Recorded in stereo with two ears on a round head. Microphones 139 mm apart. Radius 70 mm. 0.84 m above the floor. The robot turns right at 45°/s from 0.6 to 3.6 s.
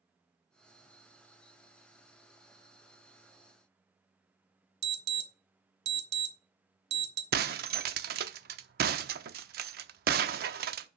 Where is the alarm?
70° right (ahead or behind), 1.4 m.